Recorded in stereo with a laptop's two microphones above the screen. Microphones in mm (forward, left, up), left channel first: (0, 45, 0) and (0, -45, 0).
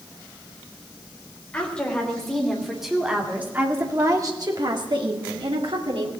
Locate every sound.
1.5 s a woman speaking: 10° left (ahead or behind), 3.5 m; by 6.1 s 80° right, 2.5 m